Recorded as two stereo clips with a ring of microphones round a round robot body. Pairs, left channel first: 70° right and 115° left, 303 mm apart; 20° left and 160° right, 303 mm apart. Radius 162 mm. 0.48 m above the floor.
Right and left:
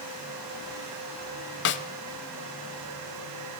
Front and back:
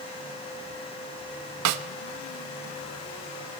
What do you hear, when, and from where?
1.6 s a snare drum: 120° right, 0.9 m